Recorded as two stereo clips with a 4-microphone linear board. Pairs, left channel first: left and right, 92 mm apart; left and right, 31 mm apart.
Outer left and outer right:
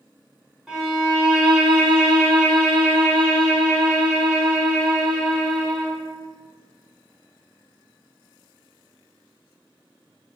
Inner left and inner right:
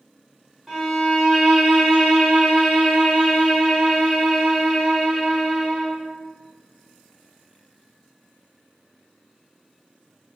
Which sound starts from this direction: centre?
A violin, at 0.7 s.